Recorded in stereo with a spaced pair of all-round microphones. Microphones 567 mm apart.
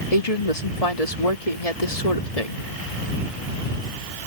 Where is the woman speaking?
80° left.